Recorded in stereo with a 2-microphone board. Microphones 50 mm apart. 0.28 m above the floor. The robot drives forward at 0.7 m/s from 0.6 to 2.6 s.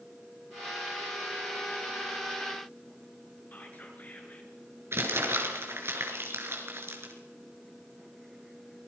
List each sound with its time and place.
3.5 s whispering: 35° left (ahead or behind), 5 m
4.9 s crumpling: 50° right (ahead or behind), 4.5 m